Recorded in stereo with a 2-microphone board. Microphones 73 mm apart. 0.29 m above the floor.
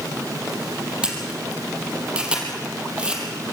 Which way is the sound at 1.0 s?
15° right (ahead or behind).